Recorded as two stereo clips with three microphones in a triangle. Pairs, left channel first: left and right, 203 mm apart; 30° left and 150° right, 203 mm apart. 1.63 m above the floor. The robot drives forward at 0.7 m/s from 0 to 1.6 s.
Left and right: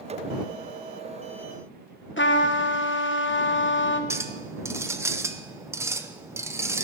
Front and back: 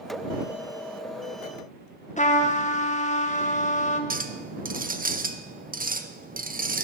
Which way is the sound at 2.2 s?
80° left.